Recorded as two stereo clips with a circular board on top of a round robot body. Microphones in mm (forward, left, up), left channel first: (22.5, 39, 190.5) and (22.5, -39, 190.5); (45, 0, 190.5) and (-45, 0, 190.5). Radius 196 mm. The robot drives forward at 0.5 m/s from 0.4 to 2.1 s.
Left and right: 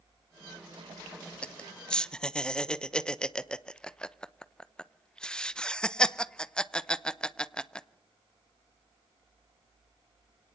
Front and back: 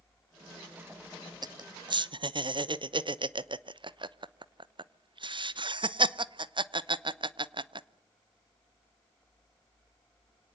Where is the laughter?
165° left, 1.0 m; by 7.9 s 170° left, 1.2 m.